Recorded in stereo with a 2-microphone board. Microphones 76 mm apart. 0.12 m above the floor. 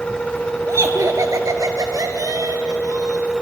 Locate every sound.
0.7 s laughter: 40° right (ahead or behind), 2 m; by 3.3 s 55° right (ahead or behind), 3.5 m